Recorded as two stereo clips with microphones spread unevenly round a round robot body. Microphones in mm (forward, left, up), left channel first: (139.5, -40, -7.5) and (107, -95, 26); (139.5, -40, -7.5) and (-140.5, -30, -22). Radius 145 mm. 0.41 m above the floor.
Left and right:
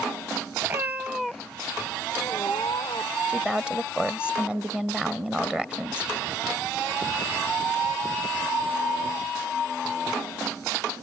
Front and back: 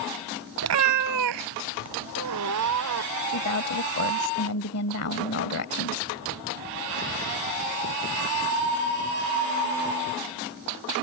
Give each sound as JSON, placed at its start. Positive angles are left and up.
{"t": 0.6, "sound": "a cat meowing", "azimuth_deg": -145}
{"t": 3.3, "sound": "a woman speaking", "azimuth_deg": -30}